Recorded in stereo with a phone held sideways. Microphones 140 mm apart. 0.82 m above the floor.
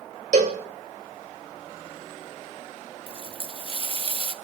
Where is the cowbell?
60° right (ahead or behind), 2 m.